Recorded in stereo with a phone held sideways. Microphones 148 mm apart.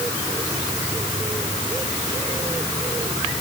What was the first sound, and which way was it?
Only background noise.